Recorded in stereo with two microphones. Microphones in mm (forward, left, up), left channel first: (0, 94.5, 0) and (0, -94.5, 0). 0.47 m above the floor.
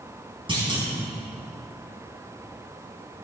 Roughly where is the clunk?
Right.